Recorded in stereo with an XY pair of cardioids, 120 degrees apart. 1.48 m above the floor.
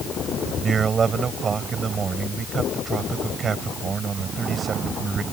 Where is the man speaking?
40° right.